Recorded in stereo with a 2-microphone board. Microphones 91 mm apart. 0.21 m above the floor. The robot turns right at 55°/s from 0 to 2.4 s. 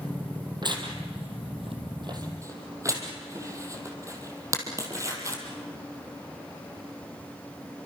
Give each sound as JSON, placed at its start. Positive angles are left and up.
{"t": 0.6, "sound": "tearing paper", "side_deg": -50, "distance_m": 4.0}